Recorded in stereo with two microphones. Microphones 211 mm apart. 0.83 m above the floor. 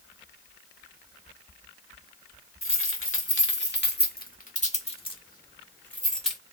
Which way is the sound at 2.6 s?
80° left.